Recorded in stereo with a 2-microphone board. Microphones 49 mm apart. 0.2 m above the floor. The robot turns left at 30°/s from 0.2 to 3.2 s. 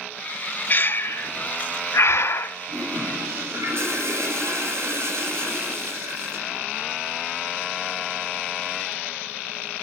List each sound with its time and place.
0.7 s breathing: 40° left (ahead or behind), 0.5 m; by 2.6 s 55° left (ahead or behind), 0.5 m
2.7 s a toilet flushing: 70° right (ahead or behind), 4.5 m; by 6.6 s 60° right (ahead or behind), 4.5 m